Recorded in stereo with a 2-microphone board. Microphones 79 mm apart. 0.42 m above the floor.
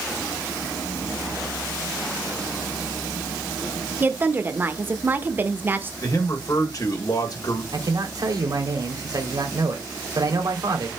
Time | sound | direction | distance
4.0 | a woman speaking | 25° right (ahead or behind) | 0.8 m
6.0 | a man speaking | 50° left (ahead or behind) | 2 m
7.7 | a man speaking | 55° right (ahead or behind) | 2 m